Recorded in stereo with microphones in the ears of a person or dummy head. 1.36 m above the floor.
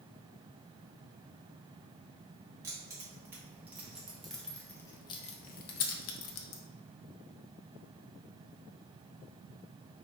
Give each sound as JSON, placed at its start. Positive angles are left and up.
{"t": 2.6, "sound": "keys jangling", "side_deg": -15, "distance_m": 1.8}